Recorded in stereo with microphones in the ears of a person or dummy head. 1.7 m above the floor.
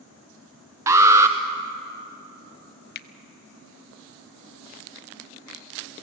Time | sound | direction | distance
0.9 | an alarm | 20° right (ahead or behind) | 1.1 m
3.0 | a finger snap | 50° left (ahead or behind) | 0.7 m